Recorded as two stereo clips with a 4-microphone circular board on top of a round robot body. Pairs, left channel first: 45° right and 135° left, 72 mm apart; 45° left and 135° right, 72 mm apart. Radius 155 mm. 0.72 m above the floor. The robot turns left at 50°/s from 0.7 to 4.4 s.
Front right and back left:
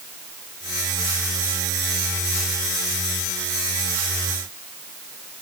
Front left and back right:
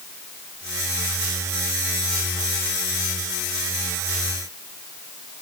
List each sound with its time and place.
Only background noise.